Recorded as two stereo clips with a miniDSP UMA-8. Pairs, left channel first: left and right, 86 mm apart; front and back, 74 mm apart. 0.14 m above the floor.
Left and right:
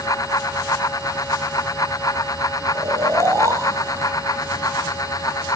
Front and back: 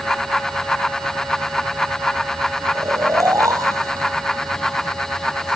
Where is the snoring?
140° right, 2.5 m.